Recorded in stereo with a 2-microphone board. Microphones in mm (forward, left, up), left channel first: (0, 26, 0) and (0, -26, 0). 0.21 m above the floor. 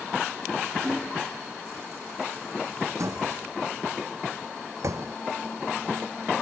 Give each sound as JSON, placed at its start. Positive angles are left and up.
{"t": 0.8, "sound": "hammering", "side_deg": -15}
{"t": 3.0, "sound": "a door slam", "side_deg": -70}